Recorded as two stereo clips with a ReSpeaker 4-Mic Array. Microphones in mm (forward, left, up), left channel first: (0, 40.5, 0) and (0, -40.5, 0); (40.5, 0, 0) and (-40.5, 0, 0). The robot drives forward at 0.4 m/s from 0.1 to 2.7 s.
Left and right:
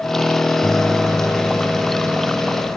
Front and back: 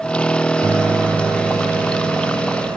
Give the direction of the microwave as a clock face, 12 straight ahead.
6 o'clock.